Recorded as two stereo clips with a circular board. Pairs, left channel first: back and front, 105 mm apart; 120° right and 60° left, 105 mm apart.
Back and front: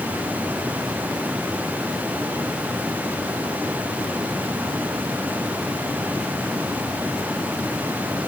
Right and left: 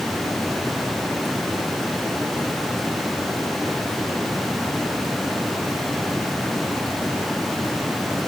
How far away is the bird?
I don't hear a bird.